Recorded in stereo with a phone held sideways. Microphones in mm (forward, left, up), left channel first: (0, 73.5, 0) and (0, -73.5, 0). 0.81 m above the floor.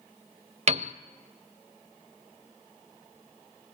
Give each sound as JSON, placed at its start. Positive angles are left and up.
{"t": 0.7, "sound": "a piano", "side_deg": -50, "distance_m": 0.8}